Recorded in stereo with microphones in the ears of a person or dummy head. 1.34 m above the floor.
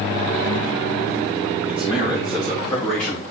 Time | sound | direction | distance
1.7 | a man speaking | 5° right (ahead or behind) | 3.5 m